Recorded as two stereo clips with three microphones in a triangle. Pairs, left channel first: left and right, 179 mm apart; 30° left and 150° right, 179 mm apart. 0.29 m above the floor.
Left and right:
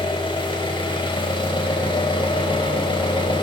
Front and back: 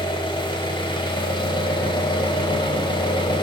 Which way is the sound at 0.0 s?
60° left.